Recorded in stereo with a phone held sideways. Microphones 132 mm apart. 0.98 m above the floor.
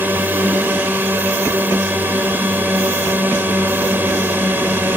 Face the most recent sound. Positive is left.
turn(degrees=-15)  # may be behind; listen again after turning